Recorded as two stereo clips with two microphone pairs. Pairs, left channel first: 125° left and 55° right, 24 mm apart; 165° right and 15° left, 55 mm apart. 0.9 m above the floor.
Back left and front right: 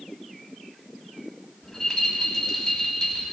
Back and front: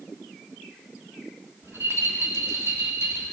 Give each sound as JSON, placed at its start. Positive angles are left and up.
{"t": 1.6, "sound": "a rattle", "azimuth_deg": 45, "distance_m": 1.9}